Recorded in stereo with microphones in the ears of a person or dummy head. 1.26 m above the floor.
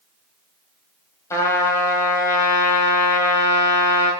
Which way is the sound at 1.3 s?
20° left (ahead or behind).